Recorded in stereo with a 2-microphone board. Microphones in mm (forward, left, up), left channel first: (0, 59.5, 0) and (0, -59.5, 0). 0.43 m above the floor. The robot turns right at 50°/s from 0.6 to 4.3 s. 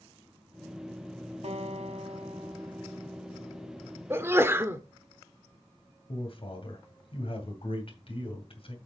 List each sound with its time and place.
1.4 s a guitar: 105° right, 1.0 m; by 4.0 s 25° left, 1.0 m
4.1 s a sneeze: 20° right (ahead or behind), 0.7 m
6.1 s a man speaking: 55° left (ahead or behind), 2.5 m